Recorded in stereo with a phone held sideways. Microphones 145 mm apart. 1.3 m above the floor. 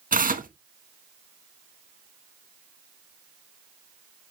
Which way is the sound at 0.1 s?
80° right.